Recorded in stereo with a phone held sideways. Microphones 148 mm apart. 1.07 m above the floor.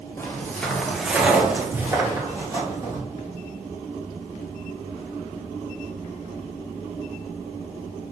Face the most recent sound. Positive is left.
turn(degrees=-25)  # may be behind; listen again after turning